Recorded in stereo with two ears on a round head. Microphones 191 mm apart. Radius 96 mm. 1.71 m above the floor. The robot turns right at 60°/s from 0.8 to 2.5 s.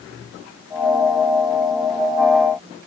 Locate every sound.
Only background noise.